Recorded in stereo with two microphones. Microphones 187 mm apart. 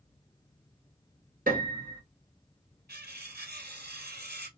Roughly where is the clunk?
No clunk in this recording.